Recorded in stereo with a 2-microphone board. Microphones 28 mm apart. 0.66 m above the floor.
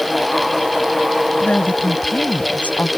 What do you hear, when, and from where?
1.4 s a woman speaking: 75° left (ahead or behind); by 2.9 s 70° left (ahead or behind)